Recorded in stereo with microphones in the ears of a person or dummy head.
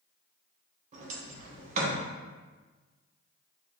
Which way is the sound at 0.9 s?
45° right (ahead or behind).